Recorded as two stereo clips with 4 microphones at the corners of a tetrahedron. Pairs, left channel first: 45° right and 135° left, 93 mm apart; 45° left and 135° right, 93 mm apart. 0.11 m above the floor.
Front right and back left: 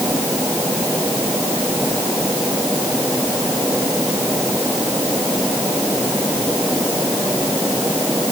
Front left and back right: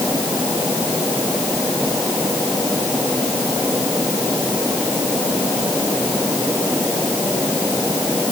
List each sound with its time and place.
Only background noise.